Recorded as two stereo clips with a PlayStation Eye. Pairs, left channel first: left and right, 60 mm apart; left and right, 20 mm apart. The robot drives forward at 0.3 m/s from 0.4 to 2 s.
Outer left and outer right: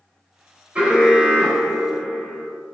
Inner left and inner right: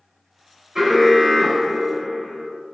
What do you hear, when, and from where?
0.8 s an alarm: 25° right (ahead or behind), 3.5 m